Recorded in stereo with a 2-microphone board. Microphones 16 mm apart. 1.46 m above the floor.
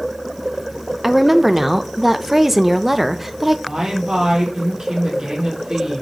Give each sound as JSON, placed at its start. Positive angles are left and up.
{"t": 1.0, "sound": "a woman speaking", "side_deg": -10, "distance_m": 0.5}
{"t": 3.7, "sound": "a woman speaking", "side_deg": -50, "distance_m": 3.0}